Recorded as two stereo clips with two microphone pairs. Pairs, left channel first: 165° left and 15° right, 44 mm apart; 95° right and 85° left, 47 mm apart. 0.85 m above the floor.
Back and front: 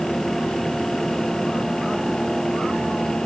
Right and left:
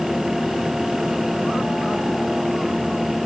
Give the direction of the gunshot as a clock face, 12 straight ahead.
No gunshot in this recording.